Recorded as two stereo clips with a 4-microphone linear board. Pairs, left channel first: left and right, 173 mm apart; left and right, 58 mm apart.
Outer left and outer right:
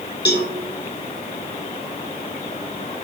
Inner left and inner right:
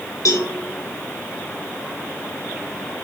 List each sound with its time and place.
0.2 s a cowbell: 80° left, 1.0 m